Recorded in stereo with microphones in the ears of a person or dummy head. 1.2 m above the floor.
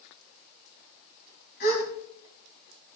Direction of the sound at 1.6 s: 50° left (ahead or behind).